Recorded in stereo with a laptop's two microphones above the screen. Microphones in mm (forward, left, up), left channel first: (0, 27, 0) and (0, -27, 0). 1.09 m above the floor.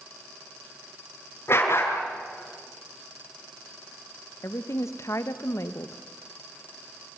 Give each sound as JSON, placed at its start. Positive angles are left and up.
{"t": 1.5, "sound": "a dog barking", "side_deg": 45, "distance_m": 6.0}
{"t": 4.4, "sound": "a woman speaking", "side_deg": 60, "distance_m": 1.2}